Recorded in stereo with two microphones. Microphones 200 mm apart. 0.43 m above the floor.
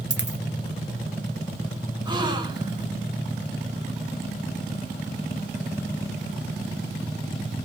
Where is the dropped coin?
60° right (ahead or behind), 0.7 m.